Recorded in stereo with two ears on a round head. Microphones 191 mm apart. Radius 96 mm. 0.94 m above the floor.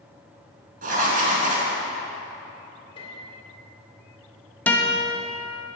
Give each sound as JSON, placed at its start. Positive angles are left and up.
{"t": 0.8, "sound": "writing", "side_deg": -40, "distance_m": 4.0}
{"t": 3.0, "sound": "a piano", "side_deg": 25, "distance_m": 2.5}
{"t": 4.7, "sound": "a guitar", "side_deg": 10, "distance_m": 1.4}